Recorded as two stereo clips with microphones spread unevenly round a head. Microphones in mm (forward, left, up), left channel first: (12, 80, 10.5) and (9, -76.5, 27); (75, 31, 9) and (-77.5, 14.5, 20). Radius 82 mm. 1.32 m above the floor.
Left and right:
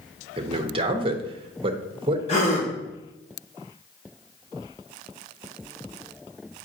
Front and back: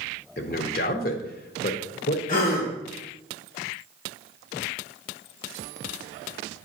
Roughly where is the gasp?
Ahead left.